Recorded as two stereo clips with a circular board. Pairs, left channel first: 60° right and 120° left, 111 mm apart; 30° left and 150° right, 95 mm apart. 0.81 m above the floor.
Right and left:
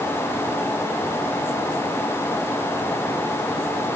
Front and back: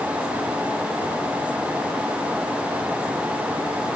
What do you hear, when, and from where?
Only background noise.